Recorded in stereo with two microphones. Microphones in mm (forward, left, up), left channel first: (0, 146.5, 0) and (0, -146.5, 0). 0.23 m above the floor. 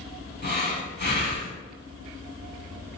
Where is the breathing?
35° left (ahead or behind), 0.6 m.